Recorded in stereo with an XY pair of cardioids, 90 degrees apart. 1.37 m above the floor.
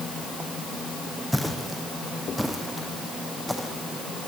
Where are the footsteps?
Straight ahead, 4.5 m.